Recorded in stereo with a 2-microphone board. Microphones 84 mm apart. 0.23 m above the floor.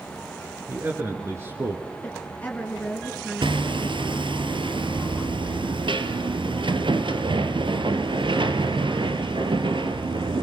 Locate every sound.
0.7 s a man speaking: 25° right (ahead or behind), 4 m; by 1.8 s 40° right (ahead or behind), 2.5 m
2.0 s a woman speaking: 20° left (ahead or behind), 3 m
3.4 s hammering: 80° right, 2 m